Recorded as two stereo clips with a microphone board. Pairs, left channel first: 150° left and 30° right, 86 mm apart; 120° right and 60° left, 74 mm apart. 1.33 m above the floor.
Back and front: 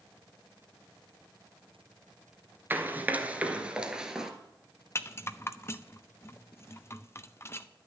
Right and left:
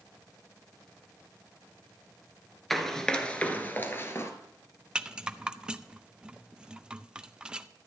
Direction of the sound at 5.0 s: 130° left.